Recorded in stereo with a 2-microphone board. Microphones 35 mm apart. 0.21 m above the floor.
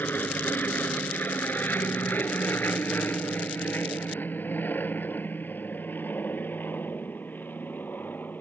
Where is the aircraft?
60° left (ahead or behind).